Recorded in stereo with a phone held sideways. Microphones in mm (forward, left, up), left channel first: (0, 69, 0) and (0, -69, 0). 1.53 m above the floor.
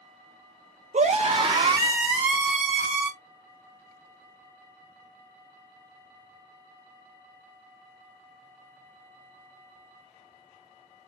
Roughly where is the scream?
Right.